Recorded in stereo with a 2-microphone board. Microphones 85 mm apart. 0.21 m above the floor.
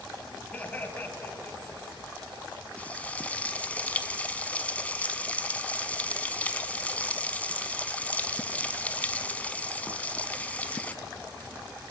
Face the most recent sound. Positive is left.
turn(degrees=15)  # may be behind; listen again after turning